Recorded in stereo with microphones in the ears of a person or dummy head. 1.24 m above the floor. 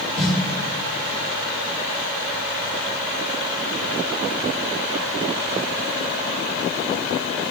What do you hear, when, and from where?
0.2 s a snare drum: centre (ahead or behind), 4 m